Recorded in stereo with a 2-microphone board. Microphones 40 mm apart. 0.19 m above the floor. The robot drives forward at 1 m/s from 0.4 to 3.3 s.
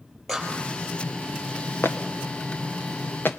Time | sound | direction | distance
0.3 | a clap | 5° left (ahead or behind) | 5 m
1.8 | footsteps | 80° left | 1.8 m